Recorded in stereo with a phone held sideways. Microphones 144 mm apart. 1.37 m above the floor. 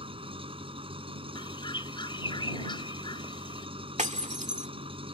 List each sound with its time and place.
0.0 s an engine running: 40° right (ahead or behind)
1.4 s a bird: 35° left (ahead or behind)
4.0 s breaking glass: 55° right (ahead or behind)